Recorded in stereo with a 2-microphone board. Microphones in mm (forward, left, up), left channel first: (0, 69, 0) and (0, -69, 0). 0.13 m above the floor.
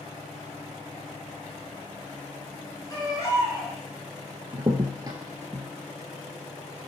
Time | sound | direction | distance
2.9 | a baby crying | 30° left (ahead or behind) | 1.5 m
4.5 | a crack | 30° right (ahead or behind) | 0.6 m